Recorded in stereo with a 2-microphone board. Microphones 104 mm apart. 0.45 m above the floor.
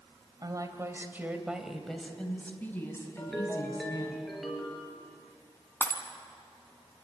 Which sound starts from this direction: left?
Breaking glass, at 5.8 s.